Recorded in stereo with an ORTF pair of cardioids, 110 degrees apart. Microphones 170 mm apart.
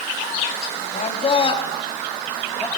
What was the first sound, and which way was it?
A man speaking, 40° left.